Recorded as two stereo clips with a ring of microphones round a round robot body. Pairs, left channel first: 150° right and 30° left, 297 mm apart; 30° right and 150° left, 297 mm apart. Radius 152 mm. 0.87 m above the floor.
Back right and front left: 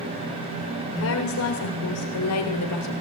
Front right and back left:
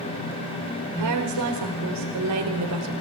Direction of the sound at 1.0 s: 165° left.